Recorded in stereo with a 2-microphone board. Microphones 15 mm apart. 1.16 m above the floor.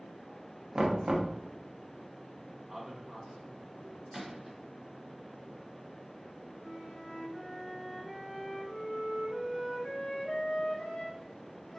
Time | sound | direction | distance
0.8 | knocking | 60° right (ahead or behind) | 0.5 m
2.7 | a man speaking | 25° right (ahead or behind) | 0.5 m
4.1 | a gunshot | 20° right (ahead or behind) | 1.6 m
6.6 | a flute | 40° left (ahead or behind) | 0.8 m